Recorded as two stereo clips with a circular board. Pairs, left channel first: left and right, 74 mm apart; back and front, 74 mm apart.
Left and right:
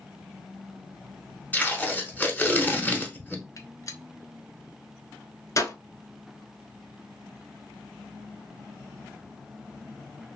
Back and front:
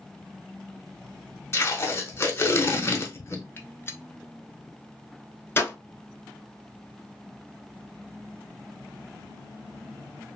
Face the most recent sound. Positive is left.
turn(degrees=125)